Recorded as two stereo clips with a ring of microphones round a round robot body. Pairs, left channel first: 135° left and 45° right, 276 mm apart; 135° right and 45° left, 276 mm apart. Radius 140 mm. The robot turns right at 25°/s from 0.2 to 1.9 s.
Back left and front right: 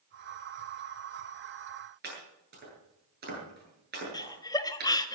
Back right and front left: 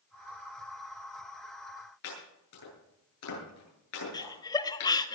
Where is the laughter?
Straight behind, 1.2 m.